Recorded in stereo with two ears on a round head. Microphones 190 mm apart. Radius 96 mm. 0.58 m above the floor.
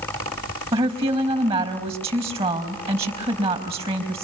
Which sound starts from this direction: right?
A woman speaking, at 0.7 s.